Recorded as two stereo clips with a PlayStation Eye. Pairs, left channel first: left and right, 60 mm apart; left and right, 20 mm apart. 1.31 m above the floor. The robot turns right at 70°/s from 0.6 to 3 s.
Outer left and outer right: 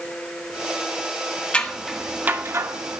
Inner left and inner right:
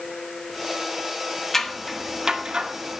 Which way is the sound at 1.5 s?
20° left (ahead or behind).